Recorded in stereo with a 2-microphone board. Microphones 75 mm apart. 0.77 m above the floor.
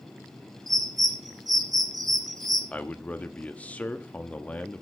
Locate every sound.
0.7 s a bird: 60° right (ahead or behind), 4.5 m
2.7 s a man speaking: 20° left (ahead or behind), 1.2 m